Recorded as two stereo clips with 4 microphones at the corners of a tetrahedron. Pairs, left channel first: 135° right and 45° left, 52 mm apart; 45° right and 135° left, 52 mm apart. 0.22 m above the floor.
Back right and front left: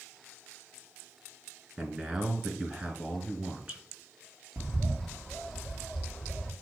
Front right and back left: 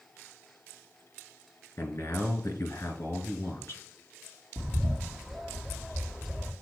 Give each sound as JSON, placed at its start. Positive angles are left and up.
{"t": 1.8, "sound": "a man speaking", "azimuth_deg": -15, "distance_m": 2.5}
{"t": 4.6, "sound": "a bird", "azimuth_deg": 55, "distance_m": 1.7}